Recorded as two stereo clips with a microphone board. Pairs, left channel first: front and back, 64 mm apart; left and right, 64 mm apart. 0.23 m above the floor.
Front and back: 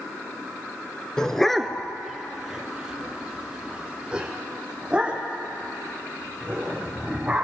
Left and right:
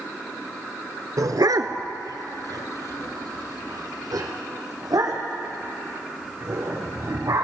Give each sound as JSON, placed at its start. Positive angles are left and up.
{"t": 1.2, "sound": "a dog barking", "azimuth_deg": -80, "distance_m": 0.6}